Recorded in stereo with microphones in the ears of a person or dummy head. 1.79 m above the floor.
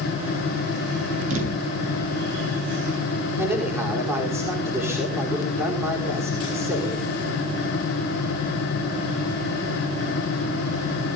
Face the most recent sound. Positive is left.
turn(degrees=-15)  # may be behind; listen again after turning